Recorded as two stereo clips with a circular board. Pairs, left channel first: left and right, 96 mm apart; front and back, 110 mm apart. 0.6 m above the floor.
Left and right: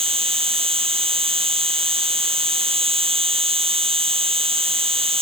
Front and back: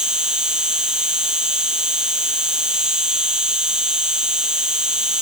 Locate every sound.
0.0 s an insect: 95° right